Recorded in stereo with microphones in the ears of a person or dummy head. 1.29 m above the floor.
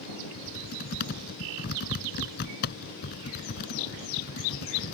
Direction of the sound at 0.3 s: 50° left (ahead or behind).